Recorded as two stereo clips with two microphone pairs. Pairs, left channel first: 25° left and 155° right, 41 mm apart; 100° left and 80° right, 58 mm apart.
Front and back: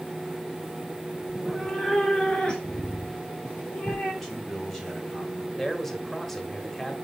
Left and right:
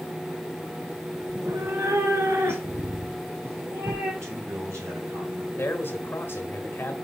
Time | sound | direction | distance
1.3 | a cat meowing | 75° right | 0.9 m
4.2 | a man speaking | 55° right | 2.5 m
5.6 | a man speaking | 105° left | 1.4 m